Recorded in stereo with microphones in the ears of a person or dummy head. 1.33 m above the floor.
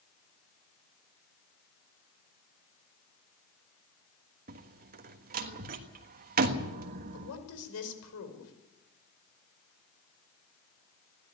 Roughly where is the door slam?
Right.